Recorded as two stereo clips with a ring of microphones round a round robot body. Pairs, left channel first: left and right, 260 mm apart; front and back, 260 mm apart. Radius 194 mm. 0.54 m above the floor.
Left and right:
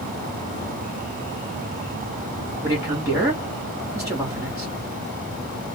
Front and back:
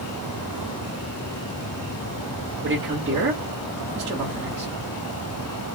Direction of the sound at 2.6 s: 165° right.